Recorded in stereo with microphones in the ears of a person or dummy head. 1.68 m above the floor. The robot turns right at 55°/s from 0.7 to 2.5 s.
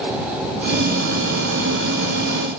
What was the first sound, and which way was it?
Only background noise.